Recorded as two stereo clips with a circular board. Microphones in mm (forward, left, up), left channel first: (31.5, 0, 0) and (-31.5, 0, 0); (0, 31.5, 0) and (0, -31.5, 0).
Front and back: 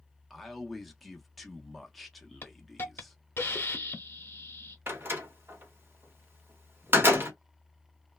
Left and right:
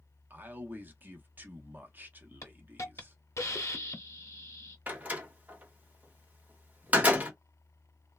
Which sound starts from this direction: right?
A man speaking, at 0.3 s.